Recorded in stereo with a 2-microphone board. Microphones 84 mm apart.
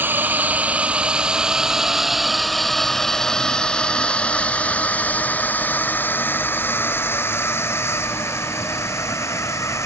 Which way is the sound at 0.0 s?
25° right (ahead or behind).